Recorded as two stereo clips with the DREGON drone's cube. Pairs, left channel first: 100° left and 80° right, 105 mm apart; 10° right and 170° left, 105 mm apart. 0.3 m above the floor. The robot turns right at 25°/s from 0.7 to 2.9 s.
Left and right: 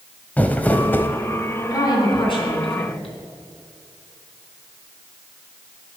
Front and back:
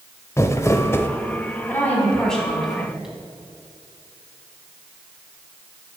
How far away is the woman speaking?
About 3 m.